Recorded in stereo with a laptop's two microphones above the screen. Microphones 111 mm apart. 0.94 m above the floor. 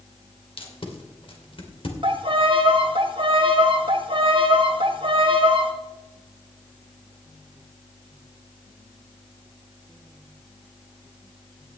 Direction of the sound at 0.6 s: 55° left (ahead or behind).